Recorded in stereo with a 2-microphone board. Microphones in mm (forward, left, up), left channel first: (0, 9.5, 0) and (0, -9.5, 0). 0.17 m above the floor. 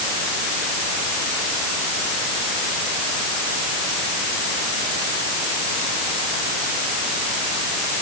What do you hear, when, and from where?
Only background noise.